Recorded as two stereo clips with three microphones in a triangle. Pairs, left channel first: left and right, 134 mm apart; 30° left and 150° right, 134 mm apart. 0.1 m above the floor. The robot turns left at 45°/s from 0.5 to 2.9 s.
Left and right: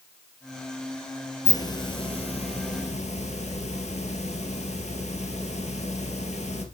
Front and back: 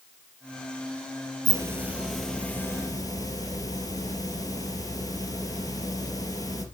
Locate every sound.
1.4 s a hiss: 150° left, 1.9 m; by 6.7 s 85° left, 1.9 m